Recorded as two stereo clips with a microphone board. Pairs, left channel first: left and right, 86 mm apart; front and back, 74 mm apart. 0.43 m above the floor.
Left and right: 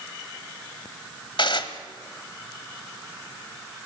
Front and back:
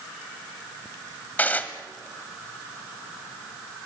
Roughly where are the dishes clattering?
Left.